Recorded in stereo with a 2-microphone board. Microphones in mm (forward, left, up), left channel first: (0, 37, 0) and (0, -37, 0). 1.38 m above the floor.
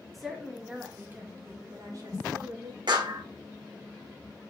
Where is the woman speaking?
Centre (ahead or behind), 2.5 m; by 2.8 s 65° right (ahead or behind), 2.5 m.